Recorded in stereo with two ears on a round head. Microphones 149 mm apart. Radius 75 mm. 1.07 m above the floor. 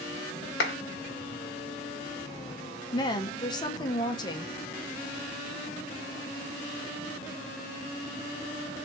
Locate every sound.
0.6 s a clap: 75° left (ahead or behind), 1.1 m
2.9 s a woman speaking: 25° left (ahead or behind), 0.7 m